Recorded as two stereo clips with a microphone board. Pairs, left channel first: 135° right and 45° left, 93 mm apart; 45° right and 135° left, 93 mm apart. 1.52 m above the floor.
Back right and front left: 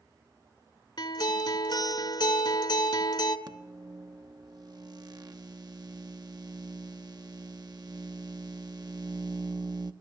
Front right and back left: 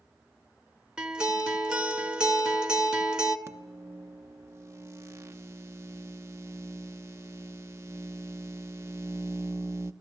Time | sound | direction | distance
1.0 | a guitar | 145° right | 2.0 m
3.5 | a microwave | 80° left | 1.0 m